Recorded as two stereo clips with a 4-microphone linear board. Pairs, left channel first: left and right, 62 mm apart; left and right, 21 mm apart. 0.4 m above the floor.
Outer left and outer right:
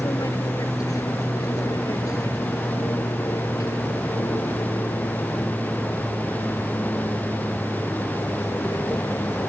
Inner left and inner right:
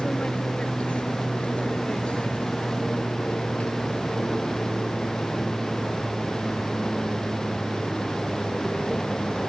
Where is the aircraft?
70° left (ahead or behind); by 9.5 s 75° left (ahead or behind).